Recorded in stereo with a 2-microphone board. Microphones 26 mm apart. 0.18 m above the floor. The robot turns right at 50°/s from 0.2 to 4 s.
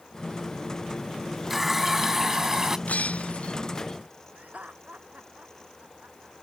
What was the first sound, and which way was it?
A running tap, 10° right (ahead or behind).